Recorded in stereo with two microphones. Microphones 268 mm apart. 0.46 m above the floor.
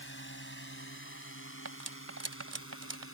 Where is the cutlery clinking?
75° right (ahead or behind).